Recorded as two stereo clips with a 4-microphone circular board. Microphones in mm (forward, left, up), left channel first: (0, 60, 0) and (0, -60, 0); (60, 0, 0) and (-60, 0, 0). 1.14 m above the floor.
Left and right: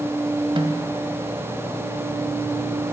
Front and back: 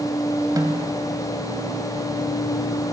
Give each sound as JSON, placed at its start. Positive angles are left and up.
{"t": 0.6, "sound": "a snare drum", "azimuth_deg": -125, "distance_m": 1.6}